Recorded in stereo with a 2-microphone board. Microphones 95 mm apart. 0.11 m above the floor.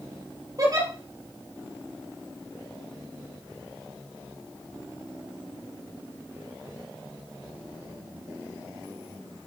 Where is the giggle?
40° right (ahead or behind), 3.5 m.